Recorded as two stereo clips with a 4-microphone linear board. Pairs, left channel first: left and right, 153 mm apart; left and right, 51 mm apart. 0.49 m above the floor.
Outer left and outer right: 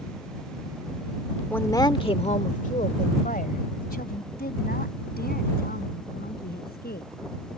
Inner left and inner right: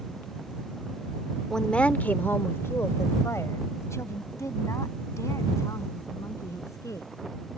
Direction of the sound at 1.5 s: 10° left (ahead or behind).